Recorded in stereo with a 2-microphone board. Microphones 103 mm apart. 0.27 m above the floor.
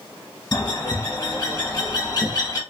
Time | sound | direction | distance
0.5 | a bird | 40° left (ahead or behind) | 1.1 m